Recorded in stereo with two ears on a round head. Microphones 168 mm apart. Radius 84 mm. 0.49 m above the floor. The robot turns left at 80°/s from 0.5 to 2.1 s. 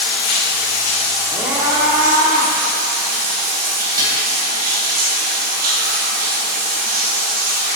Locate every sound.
0.0 s running water: 75° left, 1.7 m; by 7.8 s 55° right, 1.7 m
1.3 s a scream: 5° right (ahead or behind), 0.8 m; by 2.5 s 20° right (ahead or behind), 0.8 m
4.0 s dishes clattering: 25° right (ahead or behind), 1.2 m